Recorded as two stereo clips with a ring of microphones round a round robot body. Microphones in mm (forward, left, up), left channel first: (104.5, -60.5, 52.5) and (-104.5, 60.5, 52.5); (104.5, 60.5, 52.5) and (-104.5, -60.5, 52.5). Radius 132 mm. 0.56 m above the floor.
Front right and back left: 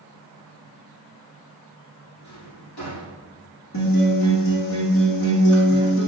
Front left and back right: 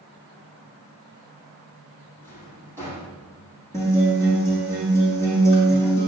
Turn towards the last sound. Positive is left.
turn(degrees=-50)